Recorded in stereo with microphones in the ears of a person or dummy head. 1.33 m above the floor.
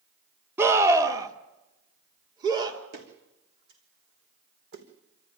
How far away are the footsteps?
About 4 m.